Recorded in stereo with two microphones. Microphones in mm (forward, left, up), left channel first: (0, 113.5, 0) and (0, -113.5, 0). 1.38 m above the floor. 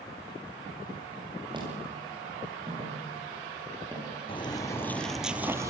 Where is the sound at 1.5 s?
20° right (ahead or behind), 10 m.